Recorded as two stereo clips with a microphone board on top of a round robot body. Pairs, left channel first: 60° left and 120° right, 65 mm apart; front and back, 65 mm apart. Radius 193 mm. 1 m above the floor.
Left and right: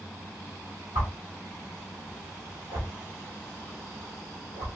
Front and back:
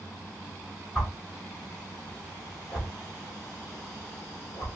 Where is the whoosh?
80° right, 0.6 m.